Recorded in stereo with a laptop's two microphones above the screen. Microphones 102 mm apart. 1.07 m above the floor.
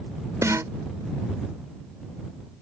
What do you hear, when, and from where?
0.4 s a snare drum: 30° right (ahead or behind)